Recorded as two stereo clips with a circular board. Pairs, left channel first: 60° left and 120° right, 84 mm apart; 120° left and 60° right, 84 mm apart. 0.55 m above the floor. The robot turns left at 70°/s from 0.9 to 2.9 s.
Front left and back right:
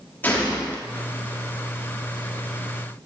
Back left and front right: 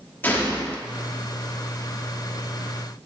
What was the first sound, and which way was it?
A gunshot, 90° left.